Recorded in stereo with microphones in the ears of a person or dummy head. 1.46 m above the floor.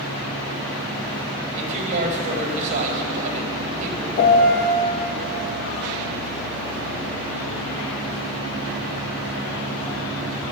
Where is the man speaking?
40° right (ahead or behind), 1.8 m.